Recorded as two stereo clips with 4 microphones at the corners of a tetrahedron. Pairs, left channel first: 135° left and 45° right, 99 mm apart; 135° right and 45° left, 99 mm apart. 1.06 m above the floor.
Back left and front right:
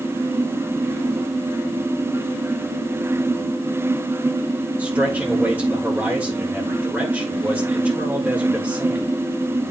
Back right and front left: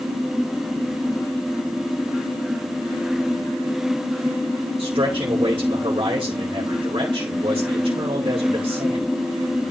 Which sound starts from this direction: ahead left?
A man speaking, at 4.8 s.